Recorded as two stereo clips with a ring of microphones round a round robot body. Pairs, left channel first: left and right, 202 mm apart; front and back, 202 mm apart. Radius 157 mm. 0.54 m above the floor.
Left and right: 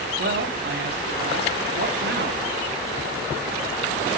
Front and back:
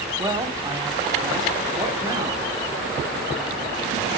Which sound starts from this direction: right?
A man speaking, at 0.2 s.